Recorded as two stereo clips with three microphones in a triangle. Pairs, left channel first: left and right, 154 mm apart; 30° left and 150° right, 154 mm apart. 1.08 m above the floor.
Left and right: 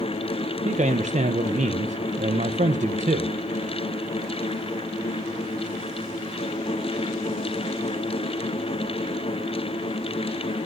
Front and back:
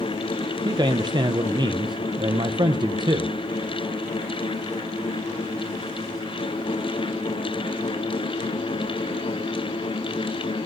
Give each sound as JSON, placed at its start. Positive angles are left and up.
{"t": 0.7, "sound": "a man speaking", "azimuth_deg": -95, "distance_m": 0.5}